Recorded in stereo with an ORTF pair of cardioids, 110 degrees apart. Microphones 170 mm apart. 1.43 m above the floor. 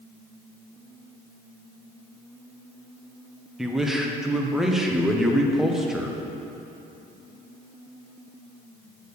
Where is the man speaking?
5° right, 1.0 m.